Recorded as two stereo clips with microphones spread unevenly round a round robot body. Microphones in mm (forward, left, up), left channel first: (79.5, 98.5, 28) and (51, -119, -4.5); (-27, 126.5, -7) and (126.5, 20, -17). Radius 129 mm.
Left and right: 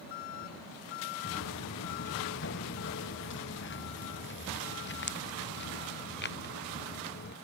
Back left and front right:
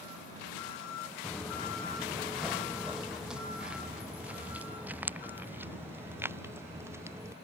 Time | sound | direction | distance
1.2 | footsteps | 60° left | ?